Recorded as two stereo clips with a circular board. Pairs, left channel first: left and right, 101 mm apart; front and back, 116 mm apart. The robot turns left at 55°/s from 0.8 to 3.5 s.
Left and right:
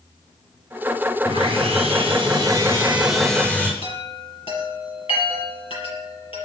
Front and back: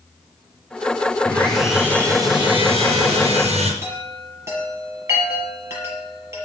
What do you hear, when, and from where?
1.2 s sawing: 75° right, 4.5 m; by 3.7 s 165° left, 4.5 m
3.8 s a chime: 115° left, 6 m